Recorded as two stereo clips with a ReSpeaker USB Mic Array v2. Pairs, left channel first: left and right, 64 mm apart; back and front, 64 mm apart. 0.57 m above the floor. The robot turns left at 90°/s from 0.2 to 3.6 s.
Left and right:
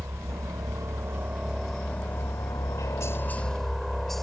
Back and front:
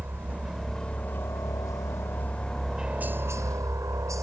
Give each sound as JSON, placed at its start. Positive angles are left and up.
{"t": 0.0, "sound": "a helicopter", "azimuth_deg": -50}